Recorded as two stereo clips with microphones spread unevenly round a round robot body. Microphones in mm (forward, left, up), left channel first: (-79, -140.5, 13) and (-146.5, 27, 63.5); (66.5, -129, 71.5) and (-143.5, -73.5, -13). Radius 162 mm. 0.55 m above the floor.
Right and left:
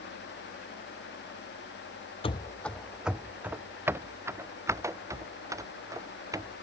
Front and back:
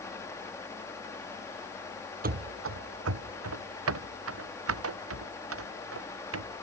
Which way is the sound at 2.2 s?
135° right.